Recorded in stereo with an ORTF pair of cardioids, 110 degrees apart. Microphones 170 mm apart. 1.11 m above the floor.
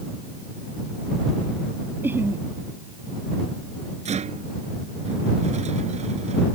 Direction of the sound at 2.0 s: 10° right.